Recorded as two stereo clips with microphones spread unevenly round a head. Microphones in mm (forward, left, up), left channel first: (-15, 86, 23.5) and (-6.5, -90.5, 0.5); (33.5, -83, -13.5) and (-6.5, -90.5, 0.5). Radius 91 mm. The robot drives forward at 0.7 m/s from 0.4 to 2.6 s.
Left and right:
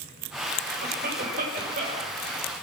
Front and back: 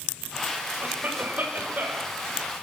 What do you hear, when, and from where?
0.8 s a cough: 130° right, 8.5 m